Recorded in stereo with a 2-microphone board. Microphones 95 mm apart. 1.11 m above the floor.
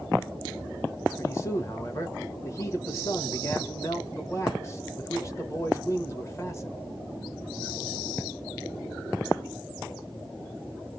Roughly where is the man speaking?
Left.